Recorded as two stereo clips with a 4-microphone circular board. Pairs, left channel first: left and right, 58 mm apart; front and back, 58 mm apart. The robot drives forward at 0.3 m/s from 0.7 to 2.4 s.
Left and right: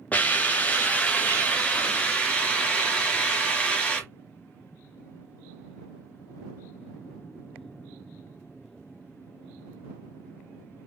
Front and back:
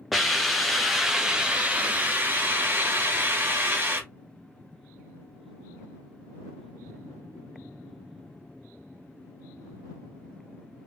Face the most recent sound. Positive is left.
turn(degrees=145)